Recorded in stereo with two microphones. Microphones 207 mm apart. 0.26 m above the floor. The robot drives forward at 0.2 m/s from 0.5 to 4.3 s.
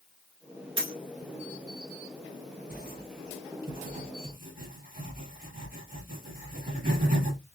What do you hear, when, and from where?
0.8 s a dropped coin: 85° right, 1.6 m
2.7 s writing: 50° right (ahead or behind), 1.5 m; by 7.6 s 40° right (ahead or behind), 1.7 m